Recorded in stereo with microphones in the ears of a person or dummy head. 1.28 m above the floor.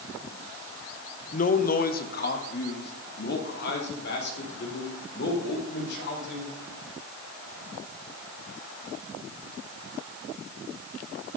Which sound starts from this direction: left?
A man speaking, at 1.3 s.